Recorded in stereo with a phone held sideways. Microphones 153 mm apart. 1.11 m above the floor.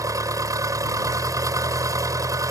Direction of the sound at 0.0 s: 20° right (ahead or behind).